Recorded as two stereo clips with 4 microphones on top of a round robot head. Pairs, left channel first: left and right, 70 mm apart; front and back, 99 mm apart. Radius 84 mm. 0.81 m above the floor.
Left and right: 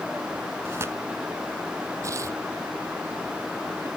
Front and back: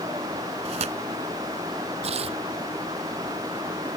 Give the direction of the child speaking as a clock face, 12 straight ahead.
No child speaking in this recording.